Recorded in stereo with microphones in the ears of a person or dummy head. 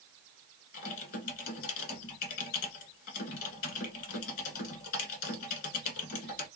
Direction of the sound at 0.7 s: 55° left (ahead or behind).